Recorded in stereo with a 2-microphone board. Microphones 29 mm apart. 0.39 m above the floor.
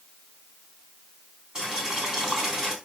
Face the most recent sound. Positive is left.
turn(degrees=-25)  # may be behind; listen again after turning